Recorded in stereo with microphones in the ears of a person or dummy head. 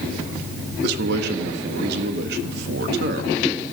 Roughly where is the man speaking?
Right.